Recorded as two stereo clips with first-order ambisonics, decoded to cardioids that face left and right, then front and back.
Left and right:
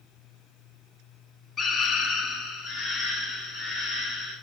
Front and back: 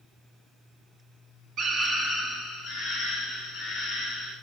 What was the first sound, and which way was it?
A scream, 140° left.